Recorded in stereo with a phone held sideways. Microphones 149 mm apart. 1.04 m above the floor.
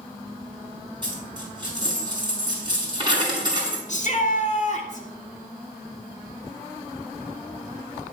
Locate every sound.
1.0 s a dropped coin: 30° right (ahead or behind), 5 m
3.9 s a shout: 50° left (ahead or behind), 2 m